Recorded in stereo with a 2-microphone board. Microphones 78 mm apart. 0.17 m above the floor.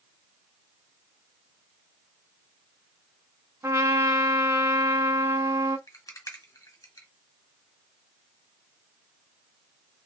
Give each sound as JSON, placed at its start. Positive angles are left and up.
{"t": 3.6, "sound": "a trumpet", "side_deg": -40, "distance_m": 1.0}
{"t": 5.9, "sound": "a rattle", "side_deg": 45, "distance_m": 1.7}